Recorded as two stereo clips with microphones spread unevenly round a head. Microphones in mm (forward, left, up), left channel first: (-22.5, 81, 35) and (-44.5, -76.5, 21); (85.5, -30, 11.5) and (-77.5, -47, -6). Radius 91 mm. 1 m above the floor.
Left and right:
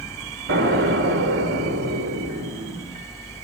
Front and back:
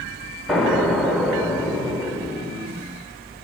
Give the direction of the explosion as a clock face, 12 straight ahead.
3 o'clock.